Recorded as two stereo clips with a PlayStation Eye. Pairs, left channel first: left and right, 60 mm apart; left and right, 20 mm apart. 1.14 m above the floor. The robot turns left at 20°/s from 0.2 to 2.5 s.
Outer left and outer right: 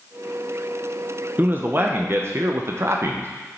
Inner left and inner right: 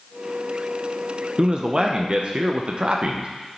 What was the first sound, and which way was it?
A man speaking, 30° right (ahead or behind).